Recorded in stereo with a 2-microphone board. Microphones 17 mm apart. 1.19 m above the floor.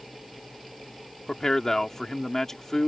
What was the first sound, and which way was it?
A man speaking, 30° left (ahead or behind).